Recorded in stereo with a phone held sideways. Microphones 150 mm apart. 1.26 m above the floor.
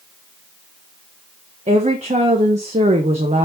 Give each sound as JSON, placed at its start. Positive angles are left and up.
{"t": 1.7, "sound": "a woman speaking", "side_deg": -45, "distance_m": 1.1}